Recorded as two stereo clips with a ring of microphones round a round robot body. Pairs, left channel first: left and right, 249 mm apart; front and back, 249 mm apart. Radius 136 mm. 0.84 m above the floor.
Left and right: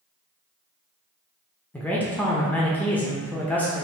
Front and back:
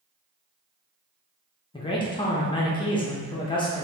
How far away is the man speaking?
About 0.6 m.